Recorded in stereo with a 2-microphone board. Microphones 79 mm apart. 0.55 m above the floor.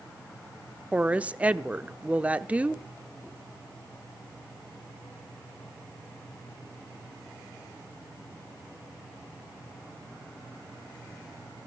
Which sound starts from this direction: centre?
A woman speaking, at 0.9 s.